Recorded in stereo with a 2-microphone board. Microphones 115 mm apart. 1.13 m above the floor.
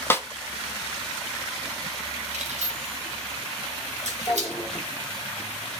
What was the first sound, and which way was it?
A snare drum, 20° left (ahead or behind).